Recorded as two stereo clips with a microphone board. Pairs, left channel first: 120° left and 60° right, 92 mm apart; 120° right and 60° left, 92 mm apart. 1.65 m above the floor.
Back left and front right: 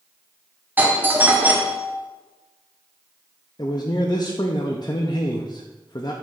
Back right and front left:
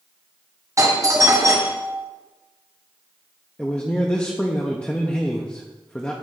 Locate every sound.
0.8 s a doorbell: 10° left, 0.9 m
3.6 s a man speaking: 165° left, 0.6 m